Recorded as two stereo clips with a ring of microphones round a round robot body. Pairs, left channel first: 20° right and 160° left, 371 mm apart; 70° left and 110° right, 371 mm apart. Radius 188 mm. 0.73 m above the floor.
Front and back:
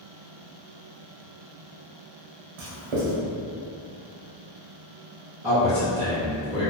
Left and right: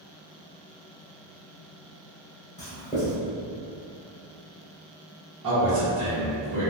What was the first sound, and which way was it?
Writing, 140° left.